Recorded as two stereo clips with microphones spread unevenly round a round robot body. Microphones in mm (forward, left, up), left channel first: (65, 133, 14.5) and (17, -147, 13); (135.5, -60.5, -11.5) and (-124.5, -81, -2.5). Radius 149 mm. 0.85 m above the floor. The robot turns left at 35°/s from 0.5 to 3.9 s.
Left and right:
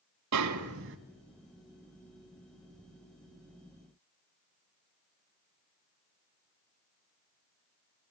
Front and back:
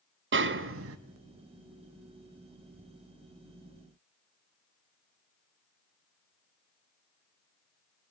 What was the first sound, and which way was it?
A snare drum, 135° right.